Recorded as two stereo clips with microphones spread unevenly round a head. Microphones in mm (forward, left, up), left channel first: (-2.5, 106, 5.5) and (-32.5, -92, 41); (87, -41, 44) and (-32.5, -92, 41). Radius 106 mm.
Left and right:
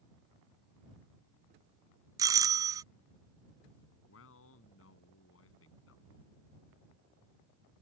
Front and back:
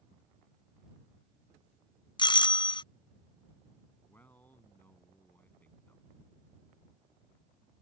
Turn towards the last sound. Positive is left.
turn(degrees=105)